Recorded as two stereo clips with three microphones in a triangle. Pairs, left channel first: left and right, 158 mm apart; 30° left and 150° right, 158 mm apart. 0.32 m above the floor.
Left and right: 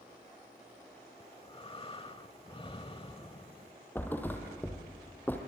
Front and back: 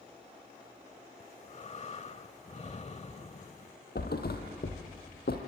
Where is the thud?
10° left, 3 m.